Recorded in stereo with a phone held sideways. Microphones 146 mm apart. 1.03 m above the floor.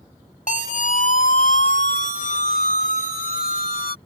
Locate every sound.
0.5 s a siren: 60° left (ahead or behind); by 4.0 s 75° left (ahead or behind)